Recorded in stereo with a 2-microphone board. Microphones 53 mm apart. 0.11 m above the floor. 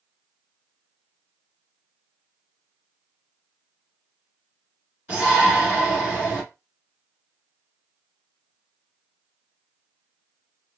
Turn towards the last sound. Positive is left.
turn(degrees=-20)  # may be behind; listen again after turning